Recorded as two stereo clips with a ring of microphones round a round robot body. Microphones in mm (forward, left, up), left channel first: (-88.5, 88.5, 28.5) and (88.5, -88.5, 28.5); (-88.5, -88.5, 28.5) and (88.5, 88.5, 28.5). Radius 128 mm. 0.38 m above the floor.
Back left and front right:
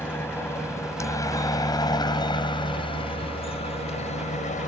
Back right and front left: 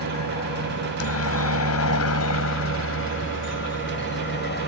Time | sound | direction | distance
0.0 | a helicopter | 145° right | ?